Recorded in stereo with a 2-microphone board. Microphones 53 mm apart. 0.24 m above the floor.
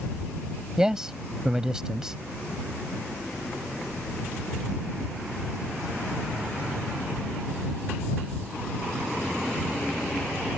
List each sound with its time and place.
0.8 s a man speaking: 10° right (ahead or behind)